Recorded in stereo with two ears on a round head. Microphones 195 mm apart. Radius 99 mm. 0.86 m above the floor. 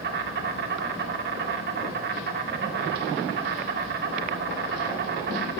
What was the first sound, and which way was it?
An insect, 50° right (ahead or behind).